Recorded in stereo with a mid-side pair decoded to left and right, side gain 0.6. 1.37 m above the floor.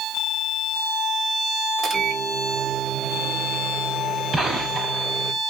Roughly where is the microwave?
Ahead right.